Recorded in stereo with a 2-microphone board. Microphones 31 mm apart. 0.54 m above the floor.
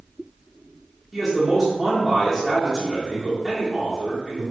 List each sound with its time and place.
1.1 s a man speaking: 5° right (ahead or behind), 1.4 m